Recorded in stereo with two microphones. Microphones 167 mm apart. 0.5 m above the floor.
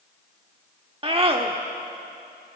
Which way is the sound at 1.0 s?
35° right (ahead or behind).